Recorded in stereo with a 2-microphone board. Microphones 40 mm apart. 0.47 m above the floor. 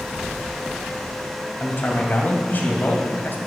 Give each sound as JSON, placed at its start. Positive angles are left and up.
{"t": 1.6, "sound": "a man speaking", "side_deg": 50, "distance_m": 2.5}